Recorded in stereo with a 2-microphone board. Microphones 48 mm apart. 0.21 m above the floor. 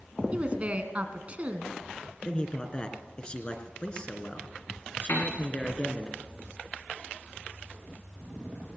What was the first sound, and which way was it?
A woman speaking, 30° right (ahead or behind).